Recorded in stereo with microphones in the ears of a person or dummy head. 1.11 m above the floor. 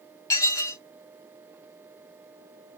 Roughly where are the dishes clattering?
Centre.